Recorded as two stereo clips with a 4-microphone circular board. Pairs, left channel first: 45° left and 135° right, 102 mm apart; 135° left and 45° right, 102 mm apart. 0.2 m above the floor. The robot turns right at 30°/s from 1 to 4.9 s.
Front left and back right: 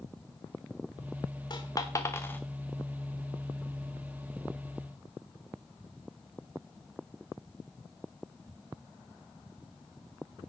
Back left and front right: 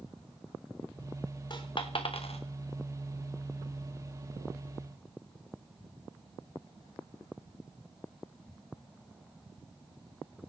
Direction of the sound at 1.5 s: 90° left.